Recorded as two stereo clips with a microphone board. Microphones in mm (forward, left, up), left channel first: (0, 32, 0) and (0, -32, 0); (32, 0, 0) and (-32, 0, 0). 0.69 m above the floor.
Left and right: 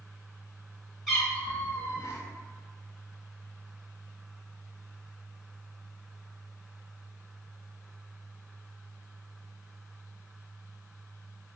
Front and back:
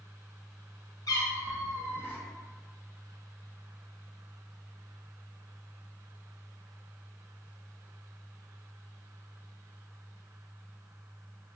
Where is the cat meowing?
5° left, 1.0 m; by 2.2 s 65° left, 0.9 m.